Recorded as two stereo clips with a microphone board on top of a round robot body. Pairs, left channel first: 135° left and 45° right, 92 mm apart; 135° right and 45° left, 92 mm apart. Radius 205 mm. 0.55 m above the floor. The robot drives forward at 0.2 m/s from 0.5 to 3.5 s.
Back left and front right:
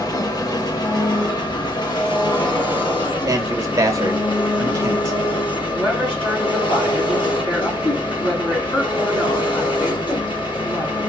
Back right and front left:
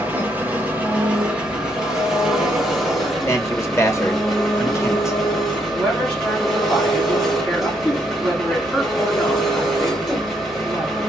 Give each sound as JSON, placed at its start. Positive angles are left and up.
{"t": 0.0, "sound": "an engine running", "azimuth_deg": 110, "distance_m": 1.3}
{"t": 3.3, "sound": "a man speaking", "azimuth_deg": -85, "distance_m": 1.1}
{"t": 5.7, "sound": "a woman speaking", "azimuth_deg": 155, "distance_m": 3.0}